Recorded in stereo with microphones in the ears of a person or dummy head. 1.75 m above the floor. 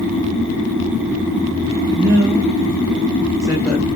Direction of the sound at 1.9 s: 50° right (ahead or behind).